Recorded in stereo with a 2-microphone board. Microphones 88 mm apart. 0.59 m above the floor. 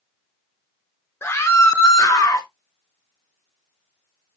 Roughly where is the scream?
Left.